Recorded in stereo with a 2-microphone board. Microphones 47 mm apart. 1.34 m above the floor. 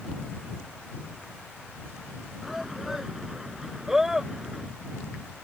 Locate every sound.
2.4 s a shout: 5° right (ahead or behind); by 4.7 s 10° right (ahead or behind)